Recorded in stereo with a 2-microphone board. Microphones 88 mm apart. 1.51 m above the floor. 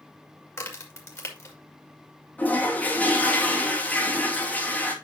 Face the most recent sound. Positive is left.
turn(degrees=20)  # may be behind; listen again after turning